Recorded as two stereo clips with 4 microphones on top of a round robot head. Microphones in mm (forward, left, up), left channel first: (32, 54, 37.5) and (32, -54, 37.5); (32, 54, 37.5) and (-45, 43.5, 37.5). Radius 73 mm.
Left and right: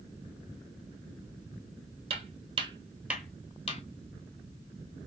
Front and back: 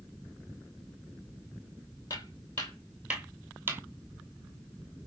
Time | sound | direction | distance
2.1 | footsteps | 60° right | 1.3 m